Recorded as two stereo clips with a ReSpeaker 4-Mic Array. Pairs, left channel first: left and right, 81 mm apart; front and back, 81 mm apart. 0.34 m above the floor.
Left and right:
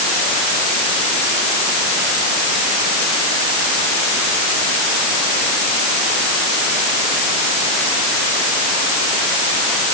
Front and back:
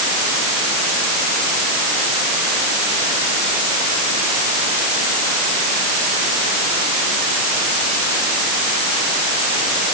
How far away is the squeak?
No squeak in this recording.